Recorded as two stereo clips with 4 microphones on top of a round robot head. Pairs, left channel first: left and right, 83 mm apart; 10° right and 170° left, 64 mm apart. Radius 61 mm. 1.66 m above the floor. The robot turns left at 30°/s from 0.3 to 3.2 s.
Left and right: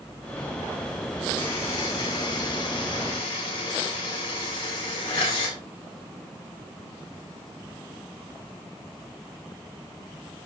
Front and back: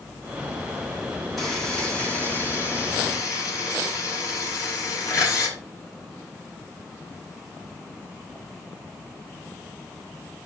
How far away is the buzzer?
About 6 m.